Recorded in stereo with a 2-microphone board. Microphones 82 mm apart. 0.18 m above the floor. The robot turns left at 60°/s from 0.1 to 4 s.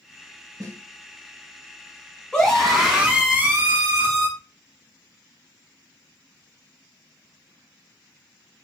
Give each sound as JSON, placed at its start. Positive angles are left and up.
{"t": 0.6, "sound": "a snare drum", "side_deg": -40, "distance_m": 0.8}
{"t": 2.3, "sound": "a scream", "azimuth_deg": 20, "distance_m": 1.2}